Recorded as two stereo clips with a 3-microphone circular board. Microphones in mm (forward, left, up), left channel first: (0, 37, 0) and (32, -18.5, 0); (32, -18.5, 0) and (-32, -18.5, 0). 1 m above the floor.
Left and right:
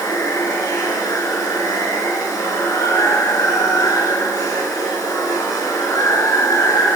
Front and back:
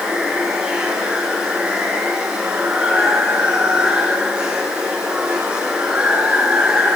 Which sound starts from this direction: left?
Running water, at 0.0 s.